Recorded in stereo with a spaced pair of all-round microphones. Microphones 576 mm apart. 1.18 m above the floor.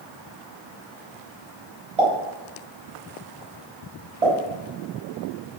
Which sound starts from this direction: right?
A pop, at 2.0 s.